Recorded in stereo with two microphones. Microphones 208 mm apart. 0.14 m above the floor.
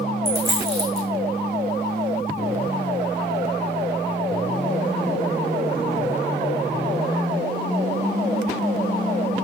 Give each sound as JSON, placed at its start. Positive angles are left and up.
{"t": 0.2, "sound": "a dropped coin", "side_deg": -10, "distance_m": 2.5}